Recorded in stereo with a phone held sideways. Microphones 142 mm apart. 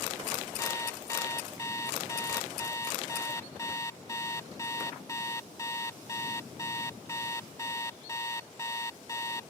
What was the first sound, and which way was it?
An alarm clock, 20° left (ahead or behind).